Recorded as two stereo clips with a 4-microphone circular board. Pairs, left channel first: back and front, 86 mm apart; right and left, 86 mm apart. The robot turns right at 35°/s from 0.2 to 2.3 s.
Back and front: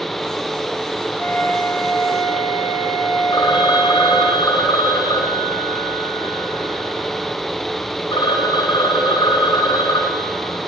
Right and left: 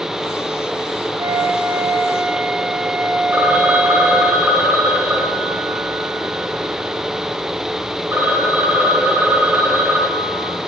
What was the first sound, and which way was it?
A flute, 125° left.